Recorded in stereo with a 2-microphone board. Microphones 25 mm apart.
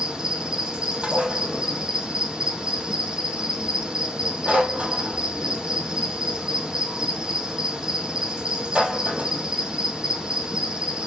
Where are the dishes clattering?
45° right (ahead or behind), 3.5 m.